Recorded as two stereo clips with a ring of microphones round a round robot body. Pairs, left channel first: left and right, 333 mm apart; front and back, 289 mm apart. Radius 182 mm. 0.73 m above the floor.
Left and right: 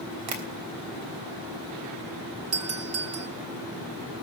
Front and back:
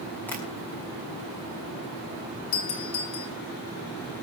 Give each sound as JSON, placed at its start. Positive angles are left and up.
{"t": 0.3, "sound": "tapping", "azimuth_deg": -85, "distance_m": 3.0}
{"t": 2.5, "sound": "a doorbell", "azimuth_deg": -55, "distance_m": 2.5}